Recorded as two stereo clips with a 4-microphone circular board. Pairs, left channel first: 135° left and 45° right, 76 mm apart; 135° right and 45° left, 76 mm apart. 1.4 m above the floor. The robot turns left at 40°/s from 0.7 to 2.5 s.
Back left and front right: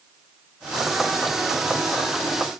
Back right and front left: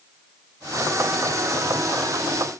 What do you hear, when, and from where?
Only background noise.